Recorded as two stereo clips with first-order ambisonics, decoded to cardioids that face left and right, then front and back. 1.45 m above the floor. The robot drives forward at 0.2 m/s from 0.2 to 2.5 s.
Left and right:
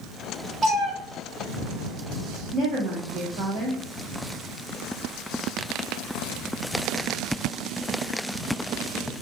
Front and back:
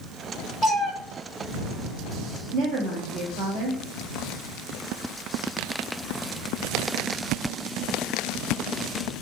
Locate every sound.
0.6 s a cat meowing: 120° right, 0.8 m; by 0.9 s 130° right, 0.8 m
2.5 s a woman speaking: 140° right, 0.6 m